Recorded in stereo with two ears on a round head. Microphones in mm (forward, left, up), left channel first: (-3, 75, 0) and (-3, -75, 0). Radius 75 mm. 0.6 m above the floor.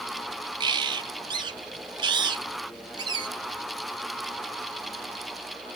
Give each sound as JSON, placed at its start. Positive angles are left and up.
{"t": 0.6, "sound": "a bird", "side_deg": -30, "distance_m": 0.7}